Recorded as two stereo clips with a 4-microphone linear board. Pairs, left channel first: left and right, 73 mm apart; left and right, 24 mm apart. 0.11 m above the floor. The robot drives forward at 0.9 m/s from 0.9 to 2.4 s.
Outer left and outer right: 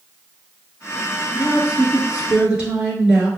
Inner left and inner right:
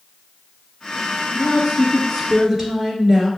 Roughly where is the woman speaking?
Centre.